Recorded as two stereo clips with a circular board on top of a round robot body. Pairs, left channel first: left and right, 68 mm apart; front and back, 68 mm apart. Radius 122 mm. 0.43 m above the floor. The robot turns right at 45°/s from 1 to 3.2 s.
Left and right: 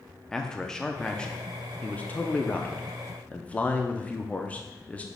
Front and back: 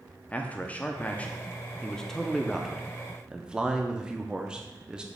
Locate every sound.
0.3 s a man speaking: 25° left, 0.7 m; by 5.0 s 120° left, 0.7 m